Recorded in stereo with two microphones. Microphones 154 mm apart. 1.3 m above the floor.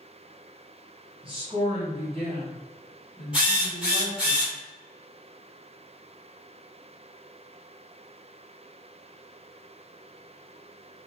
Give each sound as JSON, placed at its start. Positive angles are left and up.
{"t": 1.2, "sound": "a woman speaking", "side_deg": -40, "distance_m": 1.7}
{"t": 3.3, "sound": "a drill", "side_deg": -5, "distance_m": 1.6}